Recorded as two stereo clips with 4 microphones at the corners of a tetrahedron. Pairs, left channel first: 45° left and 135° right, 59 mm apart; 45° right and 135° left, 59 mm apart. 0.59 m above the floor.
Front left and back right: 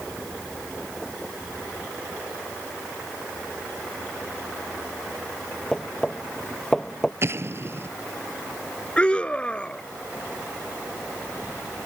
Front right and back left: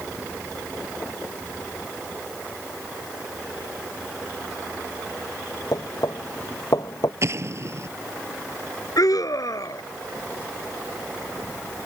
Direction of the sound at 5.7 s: 40° right.